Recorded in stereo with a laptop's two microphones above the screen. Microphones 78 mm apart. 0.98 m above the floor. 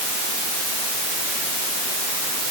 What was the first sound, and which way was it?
Only background noise.